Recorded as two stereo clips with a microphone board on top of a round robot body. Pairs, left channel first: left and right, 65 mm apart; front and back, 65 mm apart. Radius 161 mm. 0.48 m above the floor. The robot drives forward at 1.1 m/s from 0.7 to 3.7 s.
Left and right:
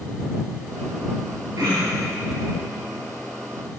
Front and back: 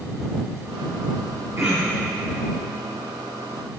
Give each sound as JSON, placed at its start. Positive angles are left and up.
{"t": 1.6, "sound": "throat clearing", "azimuth_deg": -130, "distance_m": 5.0}